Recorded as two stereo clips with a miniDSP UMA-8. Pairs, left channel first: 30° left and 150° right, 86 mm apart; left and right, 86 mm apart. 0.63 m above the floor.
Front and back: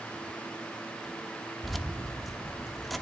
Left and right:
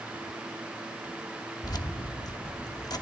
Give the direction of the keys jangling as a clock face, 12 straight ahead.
8 o'clock.